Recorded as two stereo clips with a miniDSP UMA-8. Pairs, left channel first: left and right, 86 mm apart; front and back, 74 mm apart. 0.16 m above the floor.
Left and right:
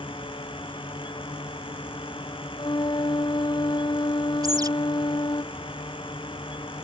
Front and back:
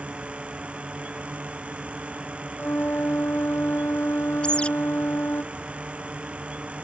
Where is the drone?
105° left.